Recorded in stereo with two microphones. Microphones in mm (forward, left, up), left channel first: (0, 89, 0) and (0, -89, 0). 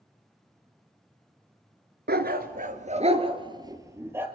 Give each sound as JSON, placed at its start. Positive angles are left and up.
{"t": 2.1, "sound": "a dog barking", "side_deg": -65, "distance_m": 1.0}